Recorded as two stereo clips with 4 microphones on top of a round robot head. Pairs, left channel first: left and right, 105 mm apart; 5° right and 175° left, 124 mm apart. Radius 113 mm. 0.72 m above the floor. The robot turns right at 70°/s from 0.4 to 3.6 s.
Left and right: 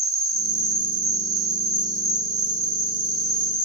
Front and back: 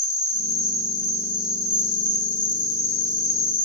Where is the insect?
150° right, 2.5 m; by 3.7 s 75° left, 2.5 m.